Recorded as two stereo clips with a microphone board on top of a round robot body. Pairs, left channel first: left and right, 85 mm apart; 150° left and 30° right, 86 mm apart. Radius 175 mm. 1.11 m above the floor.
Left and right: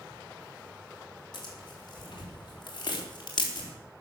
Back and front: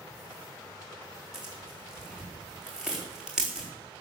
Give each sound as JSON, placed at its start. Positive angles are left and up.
{"t": 1.3, "sound": "tearing paper", "azimuth_deg": 55, "distance_m": 4.5}